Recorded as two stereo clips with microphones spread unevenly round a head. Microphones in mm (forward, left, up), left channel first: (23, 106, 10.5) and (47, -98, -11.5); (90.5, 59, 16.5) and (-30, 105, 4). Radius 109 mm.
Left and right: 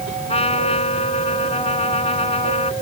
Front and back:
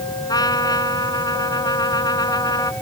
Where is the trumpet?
35° left.